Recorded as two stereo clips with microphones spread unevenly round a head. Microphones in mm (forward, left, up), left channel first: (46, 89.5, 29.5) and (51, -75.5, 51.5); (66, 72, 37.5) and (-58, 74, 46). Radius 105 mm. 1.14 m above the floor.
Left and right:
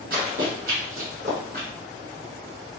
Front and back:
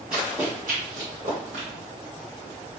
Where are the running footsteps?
100° right, 1.9 m; by 1.7 s 140° right, 2.0 m.